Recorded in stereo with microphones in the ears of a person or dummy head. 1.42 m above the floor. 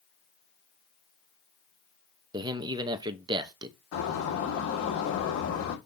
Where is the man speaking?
25° right (ahead or behind), 0.8 m.